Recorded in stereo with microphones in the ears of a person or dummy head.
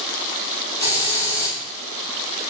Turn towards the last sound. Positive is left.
turn(degrees=-30)  # may be behind; listen again after turning